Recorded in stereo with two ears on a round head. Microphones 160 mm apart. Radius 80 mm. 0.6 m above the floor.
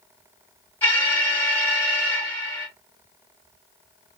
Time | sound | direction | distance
0.8 | an alarm | 10° left (ahead or behind) | 1.9 m